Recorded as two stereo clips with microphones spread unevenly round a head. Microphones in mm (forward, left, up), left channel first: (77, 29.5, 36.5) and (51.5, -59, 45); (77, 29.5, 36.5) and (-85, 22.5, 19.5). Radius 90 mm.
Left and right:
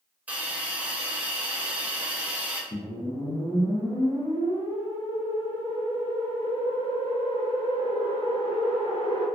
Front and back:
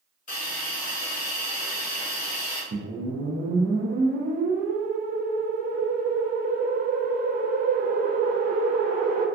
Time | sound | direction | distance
0.3 | a hiss | 35° right | 0.8 m
2.7 | a whoosh | 140° left | 0.7 m